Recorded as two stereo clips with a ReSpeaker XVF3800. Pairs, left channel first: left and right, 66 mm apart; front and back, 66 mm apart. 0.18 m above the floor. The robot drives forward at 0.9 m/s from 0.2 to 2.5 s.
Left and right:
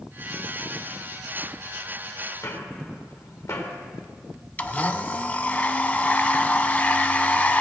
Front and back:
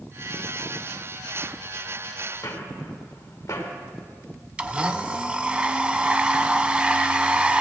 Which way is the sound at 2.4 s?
50° left.